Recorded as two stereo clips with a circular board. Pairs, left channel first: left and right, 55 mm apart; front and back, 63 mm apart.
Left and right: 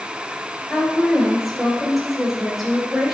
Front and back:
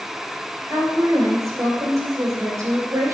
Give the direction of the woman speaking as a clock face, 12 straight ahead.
6 o'clock.